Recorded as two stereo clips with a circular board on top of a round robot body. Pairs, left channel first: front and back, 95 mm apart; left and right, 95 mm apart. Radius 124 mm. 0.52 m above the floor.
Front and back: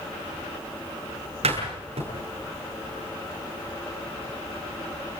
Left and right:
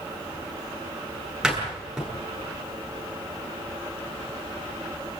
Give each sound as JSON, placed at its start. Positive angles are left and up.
{"t": 1.4, "sound": "a door slam", "azimuth_deg": -175, "distance_m": 9.5}